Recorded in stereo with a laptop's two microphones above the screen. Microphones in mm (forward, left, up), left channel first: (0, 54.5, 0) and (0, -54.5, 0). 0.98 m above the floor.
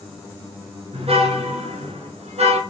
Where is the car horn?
65° right (ahead or behind), 7.5 m; by 2.6 s 75° right (ahead or behind), 7 m.